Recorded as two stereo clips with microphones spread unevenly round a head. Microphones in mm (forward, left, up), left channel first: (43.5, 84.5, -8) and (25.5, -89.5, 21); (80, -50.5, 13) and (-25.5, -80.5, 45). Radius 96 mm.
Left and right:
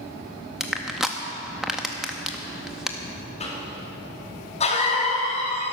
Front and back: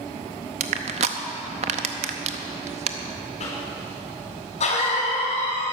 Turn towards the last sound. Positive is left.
turn(degrees=35)